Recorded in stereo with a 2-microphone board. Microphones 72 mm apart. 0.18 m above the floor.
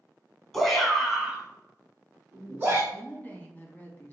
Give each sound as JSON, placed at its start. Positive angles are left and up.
{"t": 0.5, "sound": "a shout", "side_deg": 0, "distance_m": 1.4}
{"t": 2.9, "sound": "a woman speaking", "side_deg": 25, "distance_m": 1.0}